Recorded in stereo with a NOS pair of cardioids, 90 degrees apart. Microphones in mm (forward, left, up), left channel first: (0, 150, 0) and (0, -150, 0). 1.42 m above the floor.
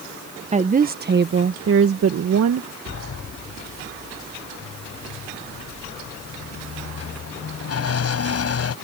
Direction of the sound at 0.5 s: 20° right.